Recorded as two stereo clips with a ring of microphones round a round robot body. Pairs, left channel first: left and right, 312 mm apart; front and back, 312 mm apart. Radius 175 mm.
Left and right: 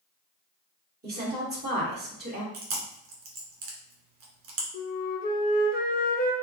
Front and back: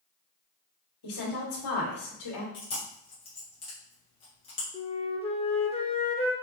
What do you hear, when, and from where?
1.0 s a woman speaking: 30° right, 2.5 m
2.5 s chewing: 75° right, 1.4 m
4.7 s a flute: 55° left, 0.9 m